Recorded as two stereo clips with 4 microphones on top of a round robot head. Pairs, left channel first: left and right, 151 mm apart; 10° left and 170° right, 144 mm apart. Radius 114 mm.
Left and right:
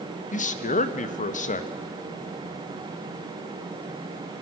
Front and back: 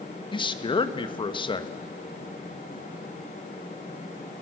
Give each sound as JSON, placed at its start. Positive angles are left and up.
{"t": 0.3, "sound": "a man speaking", "azimuth_deg": 60, "distance_m": 1.5}